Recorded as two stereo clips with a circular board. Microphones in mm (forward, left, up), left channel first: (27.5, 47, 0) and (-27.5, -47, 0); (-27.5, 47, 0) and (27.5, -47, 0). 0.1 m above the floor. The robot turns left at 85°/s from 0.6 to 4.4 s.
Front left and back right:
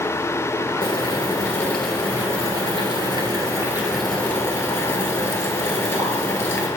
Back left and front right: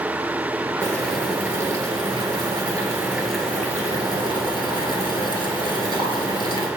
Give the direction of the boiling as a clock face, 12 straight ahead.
10 o'clock.